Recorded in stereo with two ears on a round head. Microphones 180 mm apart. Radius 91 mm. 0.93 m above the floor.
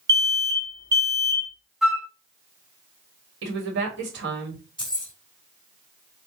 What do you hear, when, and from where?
0.1 s an alarm: 15° right (ahead or behind), 1.4 m
1.8 s a flute: centre (ahead or behind), 0.7 m
3.4 s a woman speaking: 60° right (ahead or behind), 1.6 m
4.8 s keys jangling: 5° left (ahead or behind), 2.5 m